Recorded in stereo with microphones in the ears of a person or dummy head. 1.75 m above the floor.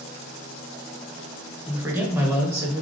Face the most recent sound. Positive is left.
turn(degrees=-10)  # may be behind; listen again after turning